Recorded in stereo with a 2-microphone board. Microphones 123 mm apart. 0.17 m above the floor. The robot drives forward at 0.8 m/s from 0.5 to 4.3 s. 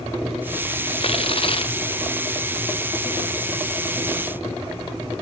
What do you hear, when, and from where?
1.0 s tearing paper: 55° left (ahead or behind); by 1.8 s 50° left (ahead or behind)